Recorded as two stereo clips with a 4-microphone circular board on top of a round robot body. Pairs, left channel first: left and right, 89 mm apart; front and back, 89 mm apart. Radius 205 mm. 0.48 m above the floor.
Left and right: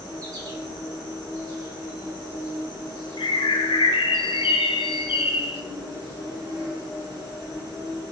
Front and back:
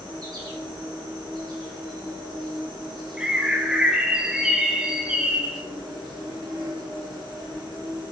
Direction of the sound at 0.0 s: 140° right.